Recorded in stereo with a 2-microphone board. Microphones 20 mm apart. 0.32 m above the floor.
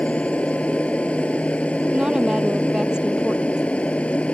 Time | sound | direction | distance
0.0 | an aircraft | 80° left | ?
1.9 | a woman speaking | 40° right (ahead or behind) | ?